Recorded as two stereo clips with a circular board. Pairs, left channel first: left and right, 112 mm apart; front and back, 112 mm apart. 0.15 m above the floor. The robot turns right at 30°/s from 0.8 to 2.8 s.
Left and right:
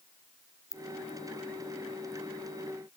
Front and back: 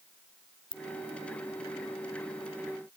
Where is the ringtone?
35° left, 0.8 m.